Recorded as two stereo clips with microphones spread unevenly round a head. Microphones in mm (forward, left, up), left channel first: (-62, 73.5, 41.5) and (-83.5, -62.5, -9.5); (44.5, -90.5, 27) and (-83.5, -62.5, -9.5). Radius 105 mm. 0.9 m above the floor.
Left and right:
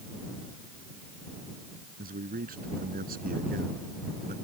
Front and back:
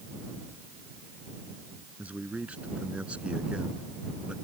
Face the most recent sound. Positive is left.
turn(degrees=-110)